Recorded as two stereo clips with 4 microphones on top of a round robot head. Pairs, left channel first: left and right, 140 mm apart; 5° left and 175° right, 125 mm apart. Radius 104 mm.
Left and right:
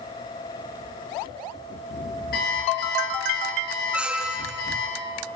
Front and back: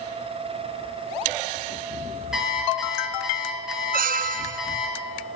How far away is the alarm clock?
About 6.5 m.